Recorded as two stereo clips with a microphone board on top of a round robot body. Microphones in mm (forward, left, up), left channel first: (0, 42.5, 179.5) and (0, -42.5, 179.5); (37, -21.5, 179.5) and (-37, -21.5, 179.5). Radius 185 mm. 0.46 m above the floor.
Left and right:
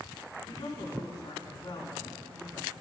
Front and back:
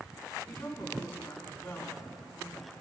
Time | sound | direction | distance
0.5 | a woman speaking | 65° left | 5.5 m